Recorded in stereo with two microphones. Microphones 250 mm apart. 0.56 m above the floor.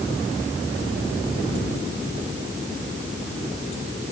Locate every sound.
Only background noise.